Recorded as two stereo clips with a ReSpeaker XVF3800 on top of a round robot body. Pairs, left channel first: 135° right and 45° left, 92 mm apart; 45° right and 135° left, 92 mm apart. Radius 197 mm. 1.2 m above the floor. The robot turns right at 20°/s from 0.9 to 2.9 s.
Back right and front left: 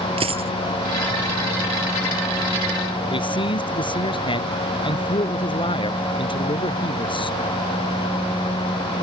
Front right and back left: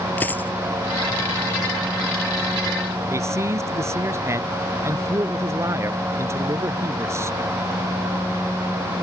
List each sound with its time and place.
0.2 s a dropped coin: 25° left
3.1 s a man speaking: 165° right